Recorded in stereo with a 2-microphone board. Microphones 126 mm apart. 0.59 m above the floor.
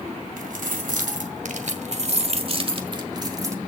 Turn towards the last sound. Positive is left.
turn(degrees=-25)  # may be behind; listen again after turning